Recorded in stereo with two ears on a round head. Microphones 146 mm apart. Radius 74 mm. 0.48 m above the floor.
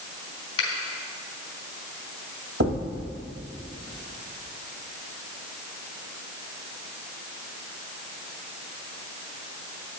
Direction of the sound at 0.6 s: 30° left (ahead or behind).